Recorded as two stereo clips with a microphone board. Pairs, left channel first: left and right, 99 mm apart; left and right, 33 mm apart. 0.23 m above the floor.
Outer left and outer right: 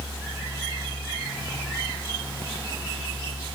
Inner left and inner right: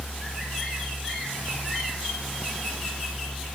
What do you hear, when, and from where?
Only background noise.